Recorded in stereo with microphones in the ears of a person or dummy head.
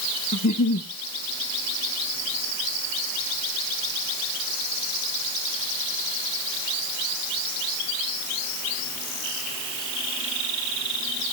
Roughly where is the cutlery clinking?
I don't hear cutlery clinking.